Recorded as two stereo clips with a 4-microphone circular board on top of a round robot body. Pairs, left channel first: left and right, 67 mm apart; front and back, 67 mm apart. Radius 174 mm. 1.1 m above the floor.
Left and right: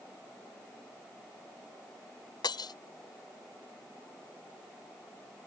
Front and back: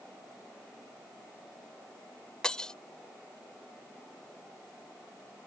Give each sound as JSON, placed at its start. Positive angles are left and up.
{"t": 2.4, "sound": "breaking glass", "azimuth_deg": 80}